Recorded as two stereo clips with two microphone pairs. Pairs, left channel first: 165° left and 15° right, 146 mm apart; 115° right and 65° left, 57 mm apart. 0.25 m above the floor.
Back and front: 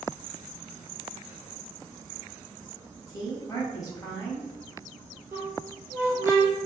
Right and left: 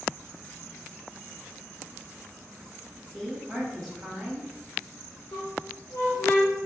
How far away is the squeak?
About 1.3 m.